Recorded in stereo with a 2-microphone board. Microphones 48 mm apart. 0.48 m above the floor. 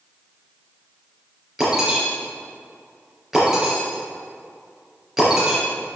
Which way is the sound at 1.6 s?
10° right (ahead or behind).